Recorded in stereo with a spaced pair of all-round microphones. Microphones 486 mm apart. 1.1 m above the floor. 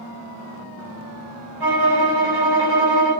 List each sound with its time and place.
1.6 s a violin: 50° right (ahead or behind), 1.2 m